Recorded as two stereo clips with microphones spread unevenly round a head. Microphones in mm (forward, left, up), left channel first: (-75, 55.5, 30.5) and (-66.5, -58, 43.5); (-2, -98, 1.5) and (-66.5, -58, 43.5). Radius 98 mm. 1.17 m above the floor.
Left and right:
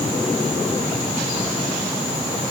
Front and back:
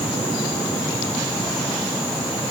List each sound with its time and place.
Only background noise.